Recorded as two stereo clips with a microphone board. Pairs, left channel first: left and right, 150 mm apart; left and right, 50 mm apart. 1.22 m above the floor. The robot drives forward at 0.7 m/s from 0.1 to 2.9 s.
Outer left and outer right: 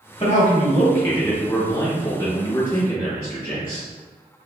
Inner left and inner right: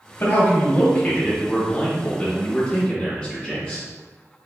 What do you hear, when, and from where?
0.2 s a man speaking: 30° left (ahead or behind), 0.8 m; by 3.9 s 10° left (ahead or behind), 2.5 m